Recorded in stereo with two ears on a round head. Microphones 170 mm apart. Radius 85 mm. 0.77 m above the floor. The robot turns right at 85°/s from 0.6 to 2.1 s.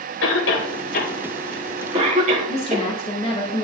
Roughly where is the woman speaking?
Left.